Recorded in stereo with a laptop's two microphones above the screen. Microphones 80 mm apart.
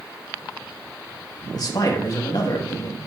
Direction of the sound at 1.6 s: 55° left (ahead or behind).